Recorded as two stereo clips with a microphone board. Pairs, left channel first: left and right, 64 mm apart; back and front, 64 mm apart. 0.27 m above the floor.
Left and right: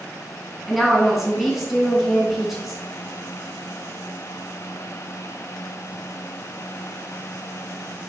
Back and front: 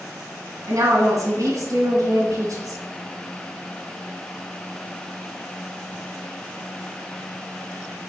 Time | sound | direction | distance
0.7 | a woman speaking | 5° right | 2.5 m